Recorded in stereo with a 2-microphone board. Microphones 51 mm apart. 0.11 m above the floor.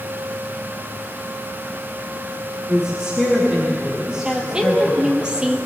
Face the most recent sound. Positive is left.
turn(degrees=-15)  # may be behind; listen again after turning